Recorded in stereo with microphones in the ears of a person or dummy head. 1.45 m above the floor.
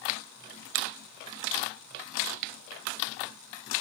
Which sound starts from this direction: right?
A finger snap, at 0.8 s.